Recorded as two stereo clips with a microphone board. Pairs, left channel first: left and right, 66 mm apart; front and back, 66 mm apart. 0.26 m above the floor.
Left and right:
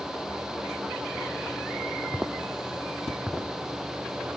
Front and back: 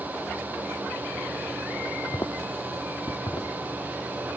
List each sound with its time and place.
2.1 s footsteps: 15° right, 1.0 m; by 3.5 s 5° left, 1.6 m